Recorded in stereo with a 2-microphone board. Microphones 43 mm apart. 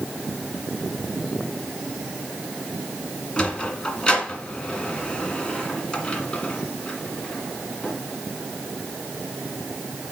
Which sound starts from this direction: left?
A sliding door, at 3.4 s.